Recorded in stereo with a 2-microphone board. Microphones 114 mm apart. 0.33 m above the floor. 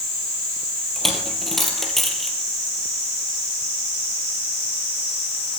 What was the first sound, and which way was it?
A dropped coin, centre (ahead or behind).